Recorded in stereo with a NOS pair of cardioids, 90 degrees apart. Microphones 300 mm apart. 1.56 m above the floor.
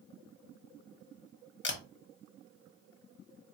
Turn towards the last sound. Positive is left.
turn(degrees=40)